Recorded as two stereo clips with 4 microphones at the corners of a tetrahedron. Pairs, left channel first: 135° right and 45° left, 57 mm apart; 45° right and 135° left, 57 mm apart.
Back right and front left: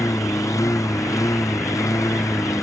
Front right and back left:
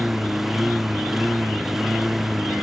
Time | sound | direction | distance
0.0 | a lawn mower | 140° right | ?